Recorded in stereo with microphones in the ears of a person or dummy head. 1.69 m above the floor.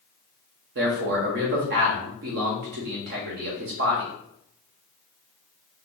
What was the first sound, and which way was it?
A man speaking, 50° right (ahead or behind).